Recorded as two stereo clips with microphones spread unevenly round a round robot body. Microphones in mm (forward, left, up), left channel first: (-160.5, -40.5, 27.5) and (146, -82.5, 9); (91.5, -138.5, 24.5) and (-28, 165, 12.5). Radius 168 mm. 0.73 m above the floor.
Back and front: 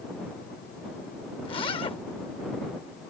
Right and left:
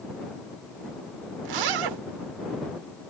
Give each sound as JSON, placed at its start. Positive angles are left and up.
{"t": 1.4, "sound": "a zipper", "azimuth_deg": 95}